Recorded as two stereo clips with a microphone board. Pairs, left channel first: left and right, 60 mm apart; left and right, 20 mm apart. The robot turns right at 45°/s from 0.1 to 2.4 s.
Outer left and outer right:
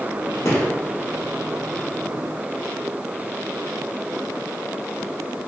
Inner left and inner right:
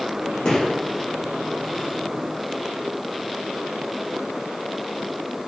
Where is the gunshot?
45° left (ahead or behind), 1.0 m; by 0.7 s 40° left (ahead or behind), 1.0 m.